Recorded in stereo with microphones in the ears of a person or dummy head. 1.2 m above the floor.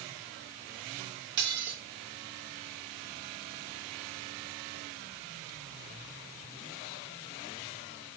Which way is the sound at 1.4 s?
60° right (ahead or behind).